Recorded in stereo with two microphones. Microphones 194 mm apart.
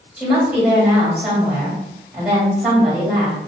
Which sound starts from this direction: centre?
A woman speaking, at 0.2 s.